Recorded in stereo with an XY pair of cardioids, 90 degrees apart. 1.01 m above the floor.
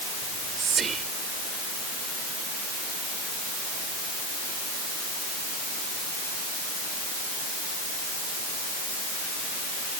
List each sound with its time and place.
0.2 s whispering: 55° right